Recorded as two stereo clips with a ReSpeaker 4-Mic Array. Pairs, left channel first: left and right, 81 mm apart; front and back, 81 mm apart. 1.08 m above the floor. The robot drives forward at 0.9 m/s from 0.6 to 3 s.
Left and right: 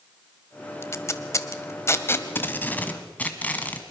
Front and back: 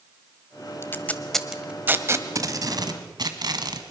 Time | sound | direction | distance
0.8 | tape being pulled | 45° left | 1.1 m